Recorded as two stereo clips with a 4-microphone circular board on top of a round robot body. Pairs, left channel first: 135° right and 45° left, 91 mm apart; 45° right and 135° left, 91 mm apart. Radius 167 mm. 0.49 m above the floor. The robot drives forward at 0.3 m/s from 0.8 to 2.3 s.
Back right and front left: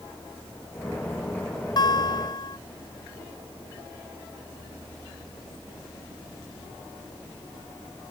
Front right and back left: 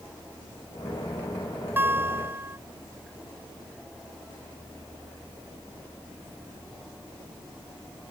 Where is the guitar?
160° right; by 2.6 s 165° right.